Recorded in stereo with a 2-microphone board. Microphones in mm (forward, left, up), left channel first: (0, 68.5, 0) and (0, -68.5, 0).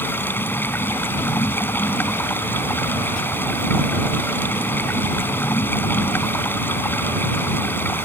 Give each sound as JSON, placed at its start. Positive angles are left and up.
{"t": 0.0, "sound": "running water", "side_deg": 15}